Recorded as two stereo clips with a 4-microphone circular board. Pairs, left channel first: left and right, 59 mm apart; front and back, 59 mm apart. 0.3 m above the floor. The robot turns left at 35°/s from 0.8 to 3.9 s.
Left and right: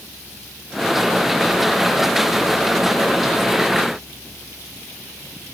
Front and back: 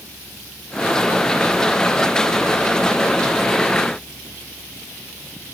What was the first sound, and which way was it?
Only background noise.